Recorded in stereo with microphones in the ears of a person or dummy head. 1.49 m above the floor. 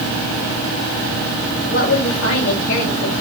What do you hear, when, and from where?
1.6 s a woman speaking: 80° left, 5.5 m